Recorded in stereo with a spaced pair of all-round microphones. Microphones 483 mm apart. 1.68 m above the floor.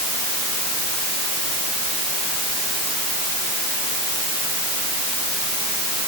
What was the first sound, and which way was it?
Only background noise.